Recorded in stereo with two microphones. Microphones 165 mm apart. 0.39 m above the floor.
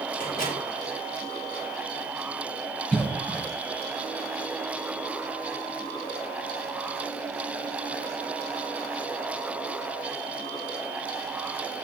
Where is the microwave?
55° left (ahead or behind), 6 m.